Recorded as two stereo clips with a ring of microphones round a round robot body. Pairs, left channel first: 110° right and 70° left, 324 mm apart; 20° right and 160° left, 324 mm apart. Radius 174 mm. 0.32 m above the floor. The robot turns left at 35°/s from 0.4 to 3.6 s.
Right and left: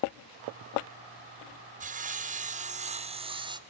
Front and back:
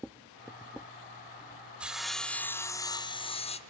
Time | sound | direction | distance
1.8 | sawing | 75° left | 0.9 m